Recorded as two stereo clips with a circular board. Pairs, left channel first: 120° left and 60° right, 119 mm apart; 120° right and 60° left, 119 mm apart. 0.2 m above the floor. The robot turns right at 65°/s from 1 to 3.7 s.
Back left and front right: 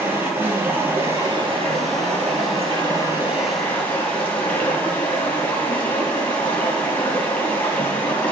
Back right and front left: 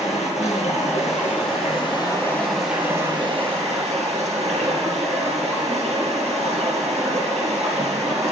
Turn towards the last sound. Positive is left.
turn(degrees=40)